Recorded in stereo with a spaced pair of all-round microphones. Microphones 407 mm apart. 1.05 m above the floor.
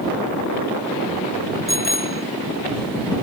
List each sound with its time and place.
1.7 s a bicycle bell: 50° left (ahead or behind)